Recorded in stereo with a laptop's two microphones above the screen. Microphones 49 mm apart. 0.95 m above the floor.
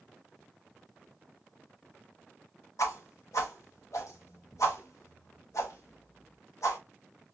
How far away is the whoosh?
About 0.9 m.